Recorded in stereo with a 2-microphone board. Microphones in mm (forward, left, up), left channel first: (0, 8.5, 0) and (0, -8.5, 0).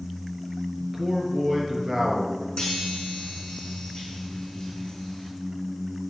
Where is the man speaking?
15° right (ahead or behind), 4 m.